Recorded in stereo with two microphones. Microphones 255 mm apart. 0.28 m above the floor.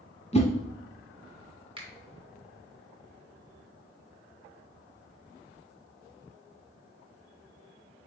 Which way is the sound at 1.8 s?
20° right (ahead or behind).